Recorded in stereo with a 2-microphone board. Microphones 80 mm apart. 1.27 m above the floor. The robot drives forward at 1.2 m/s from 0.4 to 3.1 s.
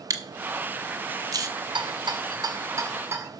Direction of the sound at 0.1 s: 40° right (ahead or behind).